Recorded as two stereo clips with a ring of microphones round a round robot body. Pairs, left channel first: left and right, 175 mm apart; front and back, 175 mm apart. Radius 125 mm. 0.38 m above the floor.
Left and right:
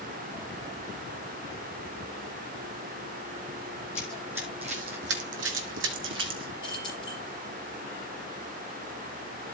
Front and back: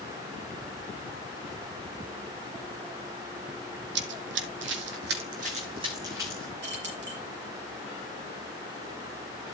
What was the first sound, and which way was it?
Running footsteps, 170° left.